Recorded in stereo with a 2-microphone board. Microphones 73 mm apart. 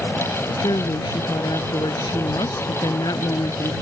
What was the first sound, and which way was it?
A woman speaking, 80° left.